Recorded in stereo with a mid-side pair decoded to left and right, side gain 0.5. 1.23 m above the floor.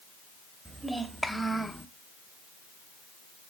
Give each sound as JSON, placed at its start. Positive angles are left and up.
{"t": 0.7, "sound": "a child speaking", "azimuth_deg": -10, "distance_m": 1.4}